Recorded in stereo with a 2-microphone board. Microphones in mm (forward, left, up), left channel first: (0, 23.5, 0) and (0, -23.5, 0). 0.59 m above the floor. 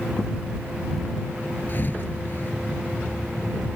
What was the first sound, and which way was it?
A thud, 40° left (ahead or behind).